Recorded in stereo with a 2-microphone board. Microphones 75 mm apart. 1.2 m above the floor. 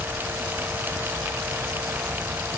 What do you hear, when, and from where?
Only background noise.